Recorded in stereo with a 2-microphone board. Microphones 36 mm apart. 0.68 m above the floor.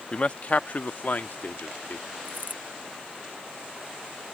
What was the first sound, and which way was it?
A man speaking, 30° left (ahead or behind).